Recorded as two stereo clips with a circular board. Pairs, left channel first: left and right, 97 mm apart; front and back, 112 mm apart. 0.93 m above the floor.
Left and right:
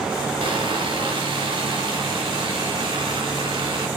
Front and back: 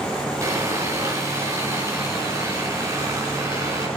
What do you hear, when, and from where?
0.4 s sawing: 120° right, 3.5 m